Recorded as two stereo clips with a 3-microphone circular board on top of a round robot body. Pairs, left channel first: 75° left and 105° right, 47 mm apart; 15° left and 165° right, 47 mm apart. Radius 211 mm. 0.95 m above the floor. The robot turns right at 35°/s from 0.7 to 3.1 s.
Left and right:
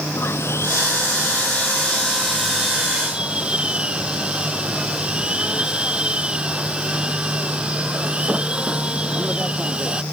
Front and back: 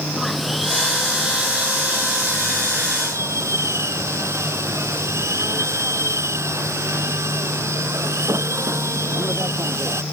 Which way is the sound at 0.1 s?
105° left.